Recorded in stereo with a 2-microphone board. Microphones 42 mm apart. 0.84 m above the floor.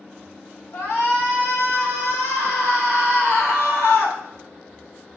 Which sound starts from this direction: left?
A shout, at 0.7 s.